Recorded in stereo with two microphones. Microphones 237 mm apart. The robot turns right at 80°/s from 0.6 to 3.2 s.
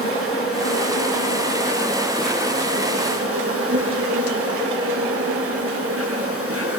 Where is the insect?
70° left, 8 m; by 6.8 s 85° right, 8 m.